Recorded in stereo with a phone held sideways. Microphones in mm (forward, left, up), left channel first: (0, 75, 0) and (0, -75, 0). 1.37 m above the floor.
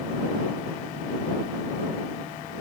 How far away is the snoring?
I don't hear snoring.